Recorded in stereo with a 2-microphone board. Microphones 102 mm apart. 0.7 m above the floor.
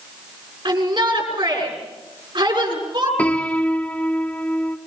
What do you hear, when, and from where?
0.7 s a shout: 45° right (ahead or behind), 7 m
3.2 s a piano: 15° left (ahead or behind), 0.8 m